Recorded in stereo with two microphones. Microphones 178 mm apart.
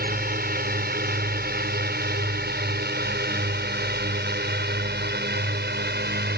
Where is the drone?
55° right (ahead or behind); by 6.4 s 65° right (ahead or behind).